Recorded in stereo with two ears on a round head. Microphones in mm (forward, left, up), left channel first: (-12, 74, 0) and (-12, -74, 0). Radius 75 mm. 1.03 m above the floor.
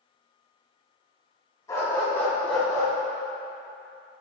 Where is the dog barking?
20° left (ahead or behind), 2.5 m; by 2.9 s centre (ahead or behind), 3 m.